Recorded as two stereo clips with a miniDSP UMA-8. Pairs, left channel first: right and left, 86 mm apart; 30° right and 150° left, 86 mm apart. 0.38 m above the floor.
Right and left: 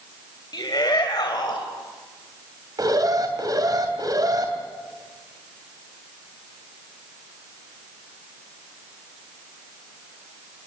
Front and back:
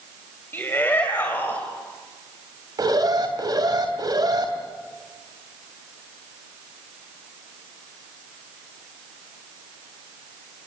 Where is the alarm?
125° left, 3 m.